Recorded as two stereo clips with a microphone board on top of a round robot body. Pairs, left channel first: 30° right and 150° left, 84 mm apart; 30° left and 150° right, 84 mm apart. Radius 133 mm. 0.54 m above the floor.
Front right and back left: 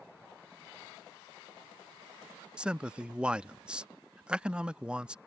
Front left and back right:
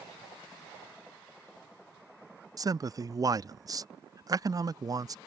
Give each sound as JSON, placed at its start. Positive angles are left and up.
{"t": 2.6, "sound": "a man speaking", "azimuth_deg": -135}